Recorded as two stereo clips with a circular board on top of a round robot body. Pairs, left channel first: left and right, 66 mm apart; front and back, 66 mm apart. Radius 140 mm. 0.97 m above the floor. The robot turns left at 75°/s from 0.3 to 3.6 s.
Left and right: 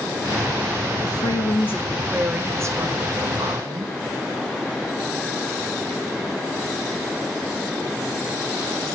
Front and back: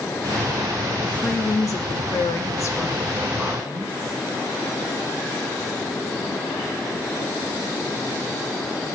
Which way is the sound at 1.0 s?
80° left.